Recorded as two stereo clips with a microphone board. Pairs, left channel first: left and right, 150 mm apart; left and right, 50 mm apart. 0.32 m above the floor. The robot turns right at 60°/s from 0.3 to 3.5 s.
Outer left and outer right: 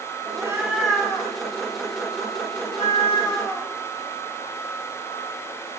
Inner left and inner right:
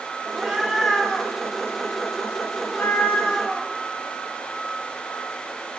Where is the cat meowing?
30° right (ahead or behind), 0.7 m; by 5.8 s 20° left (ahead or behind), 0.7 m.